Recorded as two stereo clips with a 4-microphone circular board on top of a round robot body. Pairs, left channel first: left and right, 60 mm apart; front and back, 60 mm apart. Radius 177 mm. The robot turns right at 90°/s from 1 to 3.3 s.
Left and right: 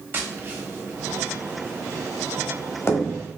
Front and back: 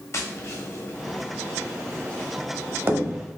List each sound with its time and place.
0.1 s tapping: 35° right, 0.8 m; by 3.3 s 165° left, 0.8 m